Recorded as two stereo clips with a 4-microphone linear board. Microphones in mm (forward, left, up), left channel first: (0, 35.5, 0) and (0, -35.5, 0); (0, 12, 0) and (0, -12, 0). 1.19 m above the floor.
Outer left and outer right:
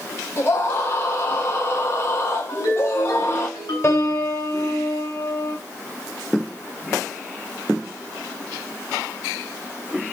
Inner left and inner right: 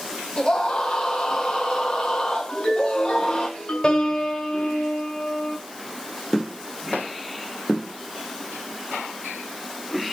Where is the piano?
35° left (ahead or behind), 6.5 m.